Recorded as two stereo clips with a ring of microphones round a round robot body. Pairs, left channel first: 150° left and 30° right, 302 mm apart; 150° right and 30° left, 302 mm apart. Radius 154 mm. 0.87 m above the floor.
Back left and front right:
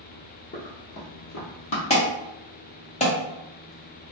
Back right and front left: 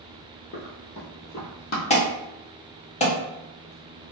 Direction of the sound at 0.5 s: 175° right.